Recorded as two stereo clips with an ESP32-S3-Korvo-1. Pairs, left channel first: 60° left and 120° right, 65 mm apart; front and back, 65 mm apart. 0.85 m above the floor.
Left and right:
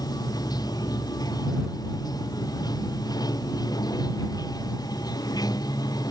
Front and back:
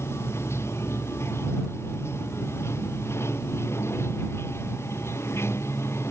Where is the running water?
50° left.